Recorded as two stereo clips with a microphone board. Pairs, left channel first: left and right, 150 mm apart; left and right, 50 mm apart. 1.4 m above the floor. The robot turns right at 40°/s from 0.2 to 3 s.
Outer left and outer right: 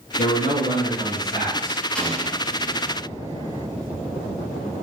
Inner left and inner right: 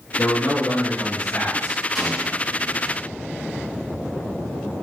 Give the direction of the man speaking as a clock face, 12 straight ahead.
10 o'clock.